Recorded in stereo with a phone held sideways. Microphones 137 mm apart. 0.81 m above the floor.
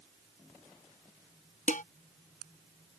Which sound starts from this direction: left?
Dishes clattering, at 1.7 s.